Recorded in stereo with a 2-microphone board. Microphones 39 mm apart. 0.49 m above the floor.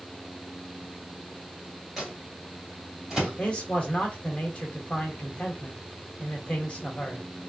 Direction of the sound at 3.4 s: 35° left (ahead or behind).